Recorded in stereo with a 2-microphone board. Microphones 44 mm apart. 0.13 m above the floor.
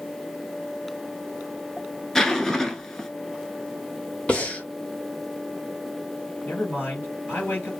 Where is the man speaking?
55° left (ahead or behind), 2.5 m.